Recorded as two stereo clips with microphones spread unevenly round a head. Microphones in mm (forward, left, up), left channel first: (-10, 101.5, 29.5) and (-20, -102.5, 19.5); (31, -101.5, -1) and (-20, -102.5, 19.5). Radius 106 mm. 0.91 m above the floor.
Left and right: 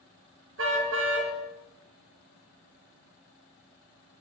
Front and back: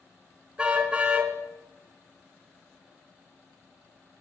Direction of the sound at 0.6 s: 115° right.